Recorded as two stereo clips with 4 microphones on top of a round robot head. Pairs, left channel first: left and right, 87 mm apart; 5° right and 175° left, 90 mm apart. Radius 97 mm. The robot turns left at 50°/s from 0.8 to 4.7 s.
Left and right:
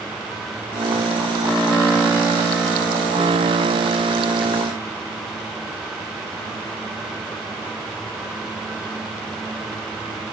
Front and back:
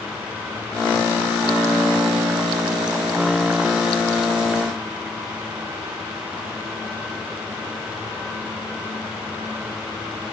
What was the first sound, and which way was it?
Only background noise.